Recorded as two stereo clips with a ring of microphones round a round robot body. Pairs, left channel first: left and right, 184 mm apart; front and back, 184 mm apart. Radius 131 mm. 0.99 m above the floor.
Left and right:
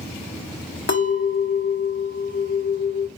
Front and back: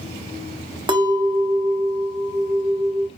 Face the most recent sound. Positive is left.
turn(degrees=115)